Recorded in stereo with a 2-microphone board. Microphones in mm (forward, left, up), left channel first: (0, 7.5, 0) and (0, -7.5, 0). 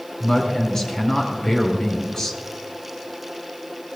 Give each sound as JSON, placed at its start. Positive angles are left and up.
{"t": 0.2, "sound": "a woman speaking", "side_deg": 30, "distance_m": 5.5}